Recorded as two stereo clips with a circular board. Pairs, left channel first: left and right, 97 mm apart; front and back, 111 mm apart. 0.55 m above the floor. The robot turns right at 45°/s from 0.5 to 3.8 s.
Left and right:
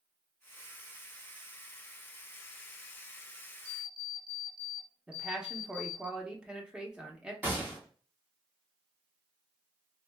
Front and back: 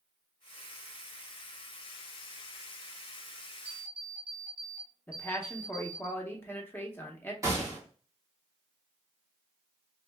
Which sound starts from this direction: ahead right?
A man speaking, at 5.1 s.